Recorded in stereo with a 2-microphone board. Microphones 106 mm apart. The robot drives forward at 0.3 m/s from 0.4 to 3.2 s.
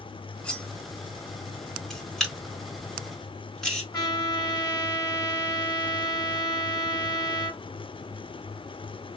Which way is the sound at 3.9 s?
35° left (ahead or behind).